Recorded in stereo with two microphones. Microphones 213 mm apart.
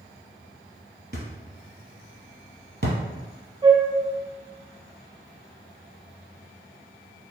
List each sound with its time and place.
1.1 s a thud: 55° right (ahead or behind), 1.4 m
3.6 s a flute: 25° right (ahead or behind), 1.2 m